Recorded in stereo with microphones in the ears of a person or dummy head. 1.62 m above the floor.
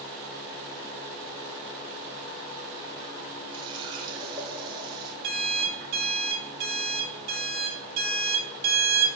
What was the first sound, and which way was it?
A running tap, 20° right (ahead or behind).